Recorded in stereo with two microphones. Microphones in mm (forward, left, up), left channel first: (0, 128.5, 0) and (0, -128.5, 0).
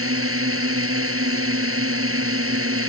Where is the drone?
60° right (ahead or behind).